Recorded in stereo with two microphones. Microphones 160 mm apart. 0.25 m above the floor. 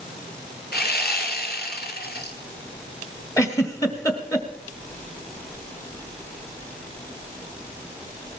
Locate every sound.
0.7 s sawing: 80° left, 1.6 m
3.4 s a giggle: 20° left (ahead or behind), 1.5 m